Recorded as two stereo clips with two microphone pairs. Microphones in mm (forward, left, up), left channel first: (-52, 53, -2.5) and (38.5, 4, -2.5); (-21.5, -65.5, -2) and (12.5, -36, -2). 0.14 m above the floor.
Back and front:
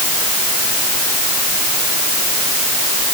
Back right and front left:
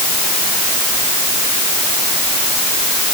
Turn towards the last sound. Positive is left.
No sound to turn to.